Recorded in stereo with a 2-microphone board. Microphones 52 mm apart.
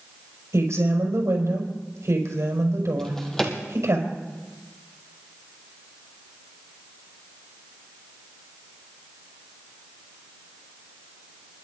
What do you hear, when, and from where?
0.5 s a woman speaking: 65° right (ahead or behind), 5.5 m
3.0 s a drawer: 10° left (ahead or behind), 2 m